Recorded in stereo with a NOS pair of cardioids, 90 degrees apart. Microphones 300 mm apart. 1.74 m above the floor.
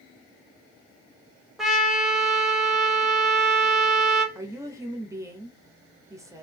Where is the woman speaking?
10° right, 1.1 m.